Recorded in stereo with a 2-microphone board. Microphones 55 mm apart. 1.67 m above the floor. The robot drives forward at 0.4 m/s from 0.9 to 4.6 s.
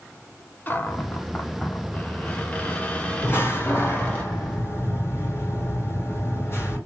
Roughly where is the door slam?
Left.